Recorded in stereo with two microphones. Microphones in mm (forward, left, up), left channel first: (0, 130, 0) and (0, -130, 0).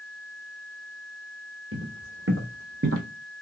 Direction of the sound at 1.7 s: 55° right (ahead or behind).